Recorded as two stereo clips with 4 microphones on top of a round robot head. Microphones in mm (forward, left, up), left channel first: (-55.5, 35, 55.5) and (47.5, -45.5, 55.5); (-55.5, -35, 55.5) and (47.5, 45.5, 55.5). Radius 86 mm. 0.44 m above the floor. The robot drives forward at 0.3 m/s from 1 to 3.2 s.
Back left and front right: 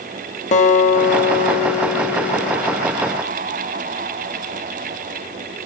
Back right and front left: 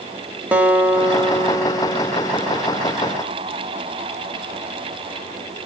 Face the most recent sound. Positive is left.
turn(degrees=135)